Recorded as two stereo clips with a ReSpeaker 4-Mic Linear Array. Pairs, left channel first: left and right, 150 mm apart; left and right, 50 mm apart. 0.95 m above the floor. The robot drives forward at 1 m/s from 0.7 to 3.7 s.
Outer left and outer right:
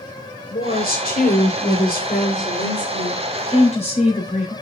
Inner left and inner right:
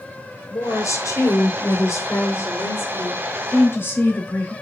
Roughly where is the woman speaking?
Left.